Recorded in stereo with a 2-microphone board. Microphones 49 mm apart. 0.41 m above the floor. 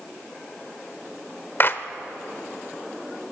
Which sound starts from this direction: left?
A clap, at 1.6 s.